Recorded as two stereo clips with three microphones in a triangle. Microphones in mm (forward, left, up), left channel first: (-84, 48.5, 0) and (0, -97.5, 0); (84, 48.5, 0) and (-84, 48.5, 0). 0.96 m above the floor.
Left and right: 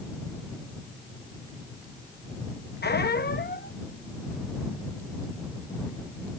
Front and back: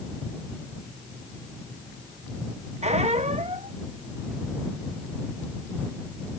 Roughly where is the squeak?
Behind left.